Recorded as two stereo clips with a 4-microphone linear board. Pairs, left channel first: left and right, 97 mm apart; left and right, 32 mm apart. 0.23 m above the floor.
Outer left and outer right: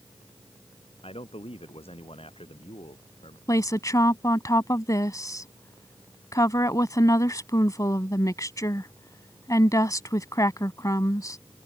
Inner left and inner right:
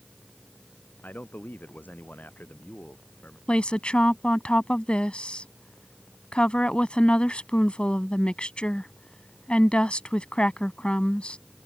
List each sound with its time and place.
1.0 s a man speaking: 75° left (ahead or behind)
3.5 s a woman speaking: 35° left (ahead or behind)